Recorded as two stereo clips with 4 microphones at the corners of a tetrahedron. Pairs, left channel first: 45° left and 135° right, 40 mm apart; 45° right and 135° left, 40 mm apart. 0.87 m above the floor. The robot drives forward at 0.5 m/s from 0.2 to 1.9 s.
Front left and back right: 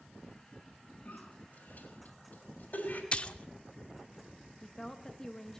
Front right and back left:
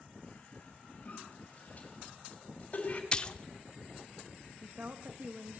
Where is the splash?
5° left, 0.5 m.